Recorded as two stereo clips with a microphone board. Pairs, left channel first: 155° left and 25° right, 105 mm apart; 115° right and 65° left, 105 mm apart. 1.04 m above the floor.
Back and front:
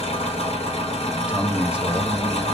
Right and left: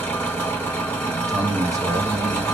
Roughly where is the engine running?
Behind.